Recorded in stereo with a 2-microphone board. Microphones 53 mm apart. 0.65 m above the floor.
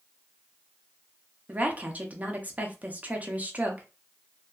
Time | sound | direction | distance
1.5 | a woman speaking | 30° right (ahead or behind) | 0.6 m